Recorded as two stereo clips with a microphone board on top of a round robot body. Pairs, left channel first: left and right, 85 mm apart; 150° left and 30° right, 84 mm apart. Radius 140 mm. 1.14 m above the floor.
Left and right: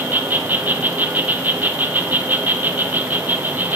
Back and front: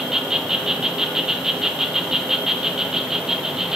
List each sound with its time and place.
0.0 s an insect: 105° right, 0.9 m